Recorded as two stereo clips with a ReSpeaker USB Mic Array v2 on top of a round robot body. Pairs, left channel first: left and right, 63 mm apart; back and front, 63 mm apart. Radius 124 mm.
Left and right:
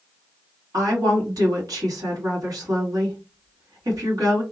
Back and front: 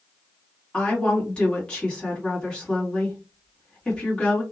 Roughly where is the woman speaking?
Right.